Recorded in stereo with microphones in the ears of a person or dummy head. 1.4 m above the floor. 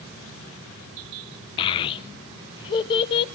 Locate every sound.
1.6 s a child speaking: 30° left (ahead or behind), 0.5 m